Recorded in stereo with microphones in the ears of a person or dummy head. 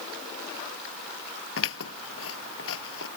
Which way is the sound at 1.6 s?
75° left (ahead or behind).